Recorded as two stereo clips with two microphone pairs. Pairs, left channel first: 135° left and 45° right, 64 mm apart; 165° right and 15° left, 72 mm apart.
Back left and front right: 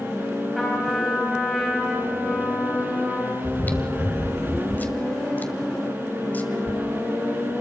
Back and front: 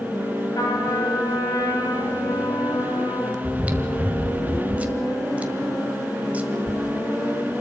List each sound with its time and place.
0.6 s a trumpet: 140° right, 4.5 m
3.4 s chewing: 75° left, 1.7 m